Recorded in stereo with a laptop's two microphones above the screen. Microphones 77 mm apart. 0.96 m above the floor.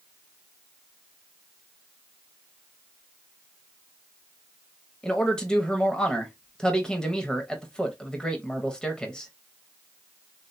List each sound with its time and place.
5.0 s a man speaking: 10° left (ahead or behind), 0.9 m